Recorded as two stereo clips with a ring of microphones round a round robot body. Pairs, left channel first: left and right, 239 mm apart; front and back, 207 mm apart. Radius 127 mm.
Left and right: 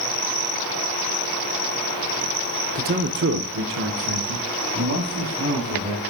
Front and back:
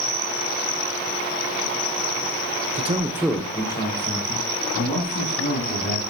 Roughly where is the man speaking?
Behind right.